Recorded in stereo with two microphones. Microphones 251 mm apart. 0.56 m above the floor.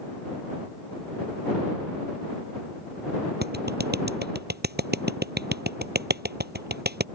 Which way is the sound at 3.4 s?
40° right (ahead or behind).